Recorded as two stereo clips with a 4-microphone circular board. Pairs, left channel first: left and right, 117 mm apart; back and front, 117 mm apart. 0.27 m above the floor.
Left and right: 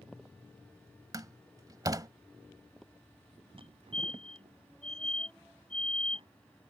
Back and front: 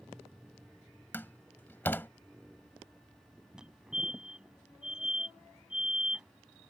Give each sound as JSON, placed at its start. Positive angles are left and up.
{"t": 1.1, "sound": "a door slam", "azimuth_deg": -120}
{"t": 3.6, "sound": "a fire alarm", "azimuth_deg": -85}